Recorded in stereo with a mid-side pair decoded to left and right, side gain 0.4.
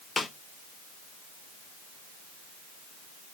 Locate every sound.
0.2 s a snare drum: 35° left, 2 m